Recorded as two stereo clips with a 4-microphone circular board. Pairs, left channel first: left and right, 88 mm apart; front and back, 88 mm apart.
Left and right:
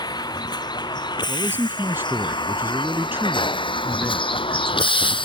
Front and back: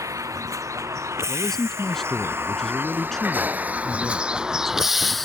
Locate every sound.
0.0 s a vehicle: 130° left; by 5.2 s 90° left
1.3 s a man speaking: 80° right